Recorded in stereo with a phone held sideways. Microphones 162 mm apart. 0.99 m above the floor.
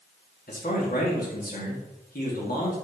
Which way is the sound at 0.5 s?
65° left (ahead or behind).